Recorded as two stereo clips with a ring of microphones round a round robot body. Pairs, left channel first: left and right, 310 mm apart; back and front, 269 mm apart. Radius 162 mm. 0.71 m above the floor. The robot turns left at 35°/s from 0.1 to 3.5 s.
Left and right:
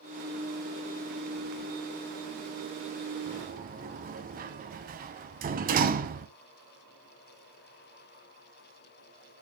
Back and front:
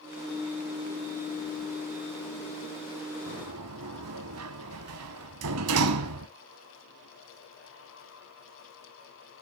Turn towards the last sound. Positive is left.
turn(degrees=-30)